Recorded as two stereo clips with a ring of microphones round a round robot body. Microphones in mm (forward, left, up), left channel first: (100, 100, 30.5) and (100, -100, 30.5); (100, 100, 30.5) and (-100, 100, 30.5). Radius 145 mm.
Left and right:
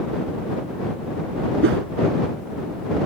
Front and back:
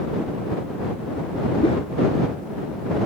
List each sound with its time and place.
1.6 s a whoosh: 70° right